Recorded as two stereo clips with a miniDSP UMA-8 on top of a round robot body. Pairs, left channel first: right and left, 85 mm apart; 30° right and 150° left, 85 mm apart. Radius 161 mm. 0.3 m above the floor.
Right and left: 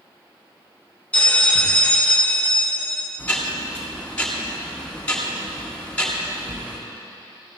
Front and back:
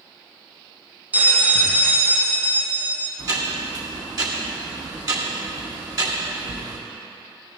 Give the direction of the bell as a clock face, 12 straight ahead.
5 o'clock.